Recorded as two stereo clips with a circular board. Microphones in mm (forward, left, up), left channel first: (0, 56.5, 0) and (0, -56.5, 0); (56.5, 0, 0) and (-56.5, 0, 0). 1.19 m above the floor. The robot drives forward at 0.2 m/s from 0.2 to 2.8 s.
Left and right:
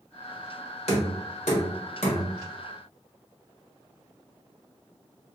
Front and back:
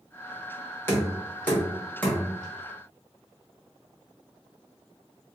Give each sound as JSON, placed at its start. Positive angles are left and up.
{"t": 0.9, "sound": "knocking", "azimuth_deg": 70, "distance_m": 1.2}